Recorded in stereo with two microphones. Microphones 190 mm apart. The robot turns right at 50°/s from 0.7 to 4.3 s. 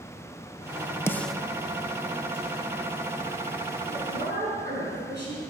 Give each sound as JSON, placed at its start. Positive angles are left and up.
{"t": 1.1, "sound": "a snare drum", "side_deg": 15, "distance_m": 0.5}
{"t": 3.9, "sound": "a woman speaking", "side_deg": -75, "distance_m": 6.0}